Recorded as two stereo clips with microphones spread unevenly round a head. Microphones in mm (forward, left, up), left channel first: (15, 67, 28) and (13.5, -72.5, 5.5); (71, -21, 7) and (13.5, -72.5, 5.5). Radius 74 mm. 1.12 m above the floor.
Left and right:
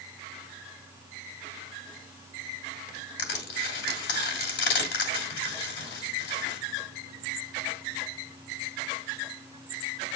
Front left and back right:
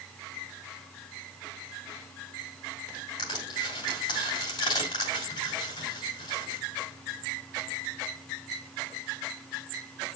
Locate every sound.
3.2 s crushing: 95° left, 2.5 m